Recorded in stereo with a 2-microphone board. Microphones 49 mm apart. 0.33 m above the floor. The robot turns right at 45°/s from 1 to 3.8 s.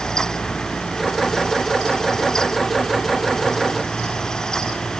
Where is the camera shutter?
No camera shutter in this recording.